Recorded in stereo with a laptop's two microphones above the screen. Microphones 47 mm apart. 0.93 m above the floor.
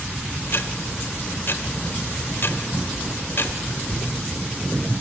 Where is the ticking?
50° left (ahead or behind), 1.2 m.